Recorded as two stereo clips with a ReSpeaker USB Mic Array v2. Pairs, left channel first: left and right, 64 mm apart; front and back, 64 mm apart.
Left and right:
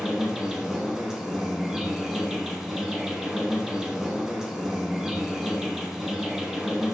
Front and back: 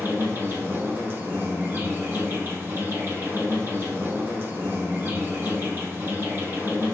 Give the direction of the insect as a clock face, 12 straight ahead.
6 o'clock.